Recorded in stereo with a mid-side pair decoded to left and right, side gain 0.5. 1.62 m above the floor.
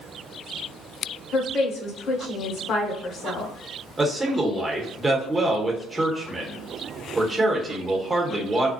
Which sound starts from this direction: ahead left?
A woman speaking, at 1.3 s.